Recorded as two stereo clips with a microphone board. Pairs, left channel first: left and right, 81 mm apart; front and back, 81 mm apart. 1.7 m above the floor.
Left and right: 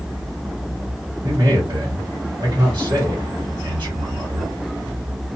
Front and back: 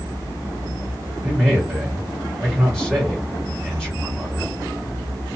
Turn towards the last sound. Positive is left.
turn(degrees=-90)